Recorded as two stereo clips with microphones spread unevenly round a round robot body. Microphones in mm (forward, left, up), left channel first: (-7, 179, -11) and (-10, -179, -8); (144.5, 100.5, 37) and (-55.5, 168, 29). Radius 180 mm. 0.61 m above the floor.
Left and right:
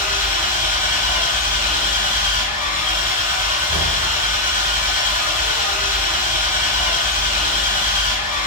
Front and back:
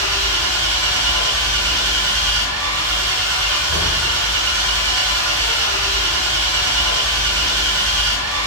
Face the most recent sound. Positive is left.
turn(degrees=160)